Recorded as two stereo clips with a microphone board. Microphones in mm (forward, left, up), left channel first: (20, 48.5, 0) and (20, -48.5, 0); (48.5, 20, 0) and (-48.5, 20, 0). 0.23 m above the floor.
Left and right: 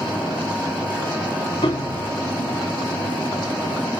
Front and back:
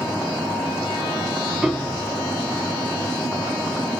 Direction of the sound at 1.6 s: 95° left.